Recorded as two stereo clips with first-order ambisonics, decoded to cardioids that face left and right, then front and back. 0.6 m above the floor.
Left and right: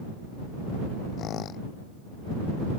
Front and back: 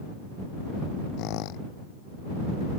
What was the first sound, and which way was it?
A squeak, 35° left.